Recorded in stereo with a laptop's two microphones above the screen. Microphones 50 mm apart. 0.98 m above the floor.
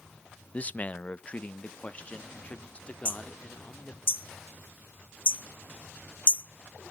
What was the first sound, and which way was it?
A man speaking, 30° left (ahead or behind).